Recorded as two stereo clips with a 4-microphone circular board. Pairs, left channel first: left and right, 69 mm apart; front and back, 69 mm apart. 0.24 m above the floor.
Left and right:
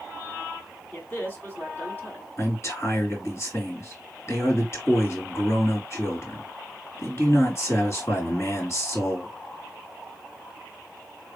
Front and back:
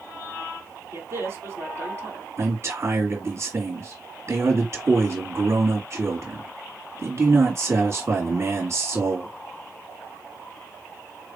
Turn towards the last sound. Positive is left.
turn(degrees=135)